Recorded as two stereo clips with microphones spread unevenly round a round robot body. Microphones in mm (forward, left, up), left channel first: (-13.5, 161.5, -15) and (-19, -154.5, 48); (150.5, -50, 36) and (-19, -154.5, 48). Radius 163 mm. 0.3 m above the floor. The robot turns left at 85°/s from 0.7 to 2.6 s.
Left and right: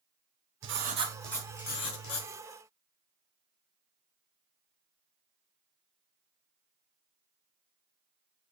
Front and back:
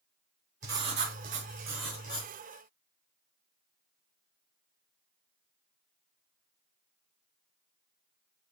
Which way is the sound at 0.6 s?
145° right.